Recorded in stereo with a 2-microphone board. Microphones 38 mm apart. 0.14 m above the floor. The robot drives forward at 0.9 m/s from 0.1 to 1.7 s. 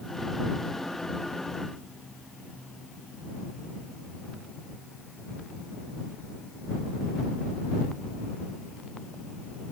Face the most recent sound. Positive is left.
No sound to turn to.